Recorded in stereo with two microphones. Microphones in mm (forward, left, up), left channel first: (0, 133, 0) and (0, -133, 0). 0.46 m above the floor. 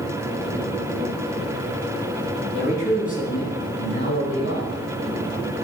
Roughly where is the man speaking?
Left.